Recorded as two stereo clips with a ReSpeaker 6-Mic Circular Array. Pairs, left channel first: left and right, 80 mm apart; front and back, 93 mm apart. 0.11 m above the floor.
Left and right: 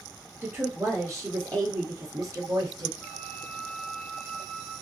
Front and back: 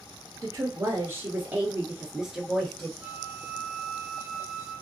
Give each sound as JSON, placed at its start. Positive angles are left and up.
{"t": 0.4, "sound": "a woman speaking", "azimuth_deg": -140, "distance_m": 1.7}
{"t": 3.0, "sound": "a flute", "azimuth_deg": 125, "distance_m": 1.8}